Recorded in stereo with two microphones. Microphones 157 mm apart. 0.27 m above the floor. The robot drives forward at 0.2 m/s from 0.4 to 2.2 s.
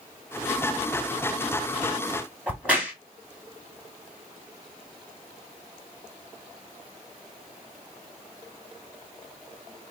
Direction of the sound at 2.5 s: 10° right (ahead or behind).